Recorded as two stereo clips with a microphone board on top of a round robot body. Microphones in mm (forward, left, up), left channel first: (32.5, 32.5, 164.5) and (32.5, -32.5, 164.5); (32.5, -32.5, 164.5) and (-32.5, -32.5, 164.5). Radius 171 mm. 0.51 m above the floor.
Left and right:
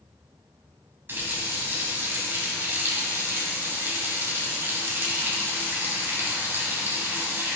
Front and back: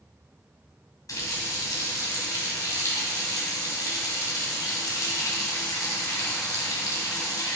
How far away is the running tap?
About 3 m.